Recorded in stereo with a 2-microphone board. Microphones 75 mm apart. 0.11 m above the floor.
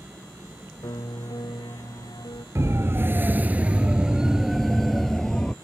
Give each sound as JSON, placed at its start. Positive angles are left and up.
{"t": 0.8, "sound": "a piano", "side_deg": 75}
{"t": 2.5, "sound": "a siren", "side_deg": -40}